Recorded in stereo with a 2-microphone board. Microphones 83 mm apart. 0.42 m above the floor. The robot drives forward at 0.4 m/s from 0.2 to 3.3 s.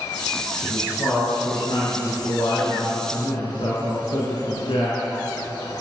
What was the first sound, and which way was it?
A man speaking, 65° left (ahead or behind).